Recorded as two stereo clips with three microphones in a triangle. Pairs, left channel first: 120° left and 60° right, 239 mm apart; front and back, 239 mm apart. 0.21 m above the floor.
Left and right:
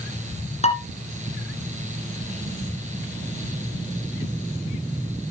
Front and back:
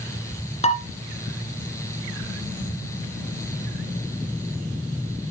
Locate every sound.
0.6 s dishes clattering: 60° left, 1.9 m